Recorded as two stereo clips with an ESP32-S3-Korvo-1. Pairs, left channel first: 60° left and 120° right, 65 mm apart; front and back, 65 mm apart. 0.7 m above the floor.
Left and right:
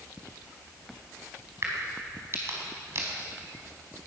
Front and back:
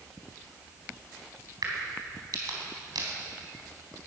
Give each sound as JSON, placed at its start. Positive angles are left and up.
{"t": 1.6, "sound": "a crack", "azimuth_deg": -165, "distance_m": 4.0}